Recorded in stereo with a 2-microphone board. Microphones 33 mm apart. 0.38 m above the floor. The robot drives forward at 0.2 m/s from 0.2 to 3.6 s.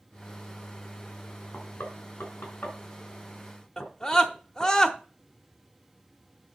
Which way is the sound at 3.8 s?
20° left (ahead or behind).